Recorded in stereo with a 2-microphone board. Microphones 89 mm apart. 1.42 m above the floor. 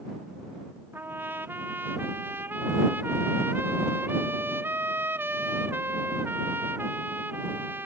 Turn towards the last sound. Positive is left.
turn(degrees=-25)  # may be behind; listen again after turning